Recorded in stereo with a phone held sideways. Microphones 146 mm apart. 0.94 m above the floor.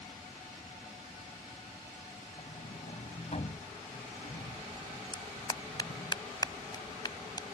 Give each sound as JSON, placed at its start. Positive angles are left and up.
{"t": 2.4, "sound": "a sliding door", "side_deg": 50}
{"t": 5.1, "sound": "a clap", "side_deg": 30}